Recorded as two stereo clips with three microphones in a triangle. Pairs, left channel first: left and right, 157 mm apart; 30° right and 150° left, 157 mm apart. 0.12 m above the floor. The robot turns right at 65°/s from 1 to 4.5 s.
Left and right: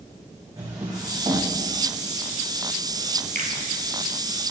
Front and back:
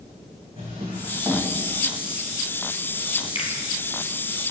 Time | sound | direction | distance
0.6 | a drawer | 155° right | 4 m
3.4 | a finger snap | 80° right | 2 m